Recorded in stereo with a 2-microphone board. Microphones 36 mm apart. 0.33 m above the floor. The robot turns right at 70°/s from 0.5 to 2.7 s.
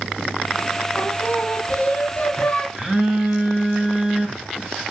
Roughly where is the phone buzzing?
Centre.